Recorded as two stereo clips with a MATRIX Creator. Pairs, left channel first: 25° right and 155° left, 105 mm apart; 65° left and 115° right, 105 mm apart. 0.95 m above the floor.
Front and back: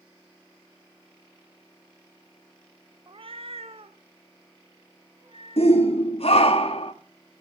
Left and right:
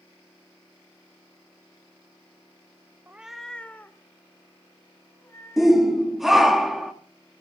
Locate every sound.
3.1 s a cat meowing: 175° right, 0.5 m; by 6.1 s 130° left, 4 m
5.6 s a shout: 25° right, 2 m